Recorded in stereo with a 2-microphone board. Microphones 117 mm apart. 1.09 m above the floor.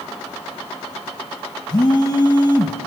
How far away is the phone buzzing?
About 1.8 m.